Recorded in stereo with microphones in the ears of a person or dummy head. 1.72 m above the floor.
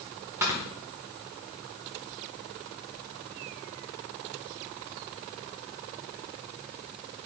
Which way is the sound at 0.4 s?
15° right (ahead or behind).